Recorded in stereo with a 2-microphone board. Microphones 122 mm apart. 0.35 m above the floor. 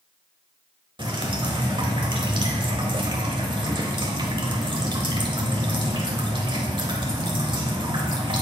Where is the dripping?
40° right (ahead or behind), 1.1 m.